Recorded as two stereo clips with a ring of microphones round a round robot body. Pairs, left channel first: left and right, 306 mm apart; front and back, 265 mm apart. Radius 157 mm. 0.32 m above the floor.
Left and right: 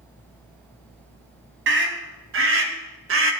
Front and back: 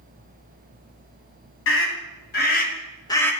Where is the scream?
40° right, 2.5 m; by 3.3 s 80° right, 1.3 m.